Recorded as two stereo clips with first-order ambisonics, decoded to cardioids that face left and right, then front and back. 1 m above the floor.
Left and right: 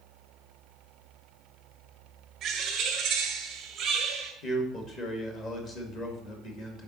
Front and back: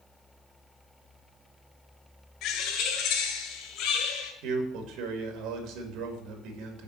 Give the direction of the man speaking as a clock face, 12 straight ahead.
7 o'clock.